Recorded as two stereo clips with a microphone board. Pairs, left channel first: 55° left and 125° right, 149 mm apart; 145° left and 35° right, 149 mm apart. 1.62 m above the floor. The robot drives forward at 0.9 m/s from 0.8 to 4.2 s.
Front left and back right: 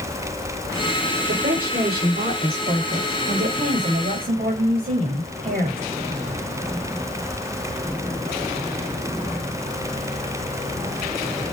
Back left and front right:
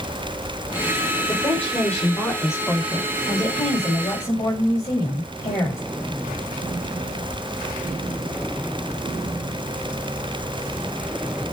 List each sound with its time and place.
1.3 s a woman speaking: 135° right, 7 m; by 5.8 s 145° right, 9 m